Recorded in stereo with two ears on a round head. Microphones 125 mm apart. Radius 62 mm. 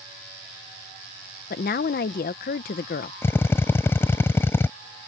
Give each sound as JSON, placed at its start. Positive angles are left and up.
{"t": 1.5, "sound": "a woman speaking", "side_deg": 70}
{"t": 3.2, "sound": "a drill", "side_deg": 15}